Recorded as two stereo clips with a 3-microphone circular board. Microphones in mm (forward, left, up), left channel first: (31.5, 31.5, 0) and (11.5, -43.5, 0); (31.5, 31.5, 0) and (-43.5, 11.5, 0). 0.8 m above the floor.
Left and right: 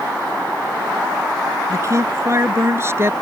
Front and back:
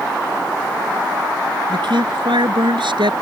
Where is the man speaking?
155° right; by 3.1 s 165° right.